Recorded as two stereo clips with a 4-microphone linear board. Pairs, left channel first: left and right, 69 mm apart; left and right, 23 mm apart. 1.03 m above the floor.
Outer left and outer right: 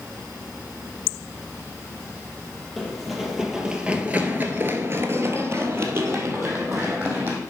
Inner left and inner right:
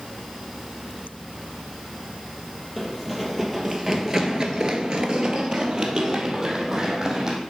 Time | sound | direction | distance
2.8 | running footsteps | centre (ahead or behind) | 2.0 m